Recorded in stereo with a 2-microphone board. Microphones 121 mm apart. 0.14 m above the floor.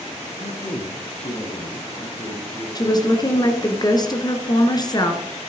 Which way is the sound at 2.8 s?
35° left (ahead or behind).